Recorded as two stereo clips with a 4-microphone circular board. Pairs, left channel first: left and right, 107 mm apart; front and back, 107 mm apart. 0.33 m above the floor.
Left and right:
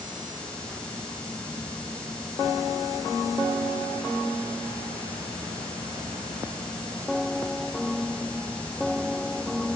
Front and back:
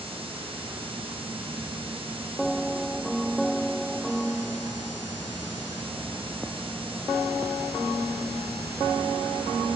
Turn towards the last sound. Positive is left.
No sound to turn to.